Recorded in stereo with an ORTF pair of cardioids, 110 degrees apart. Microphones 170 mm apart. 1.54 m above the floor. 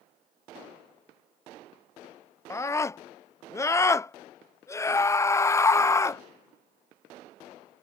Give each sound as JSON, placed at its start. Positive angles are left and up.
{"t": 2.5, "sound": "a scream", "azimuth_deg": 15}